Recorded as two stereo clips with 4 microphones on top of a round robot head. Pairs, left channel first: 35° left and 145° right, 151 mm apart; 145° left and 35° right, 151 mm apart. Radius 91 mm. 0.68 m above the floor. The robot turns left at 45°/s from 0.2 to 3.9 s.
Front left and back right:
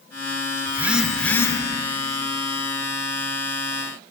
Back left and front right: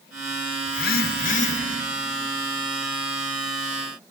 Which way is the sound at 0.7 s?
140° left.